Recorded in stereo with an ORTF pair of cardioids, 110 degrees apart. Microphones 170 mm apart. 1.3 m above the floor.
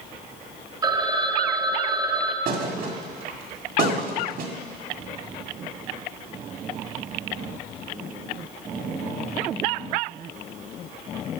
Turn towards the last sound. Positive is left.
turn(degrees=-60)